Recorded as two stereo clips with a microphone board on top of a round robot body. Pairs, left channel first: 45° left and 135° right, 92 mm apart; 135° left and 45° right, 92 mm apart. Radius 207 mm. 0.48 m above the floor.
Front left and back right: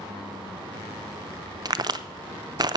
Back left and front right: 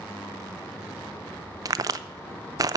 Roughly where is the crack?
Right.